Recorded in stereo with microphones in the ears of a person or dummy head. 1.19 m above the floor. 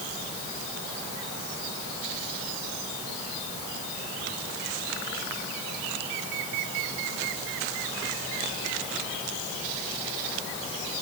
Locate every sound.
Only background noise.